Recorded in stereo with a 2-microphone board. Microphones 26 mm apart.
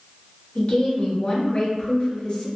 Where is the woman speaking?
40° left (ahead or behind), 1.3 m.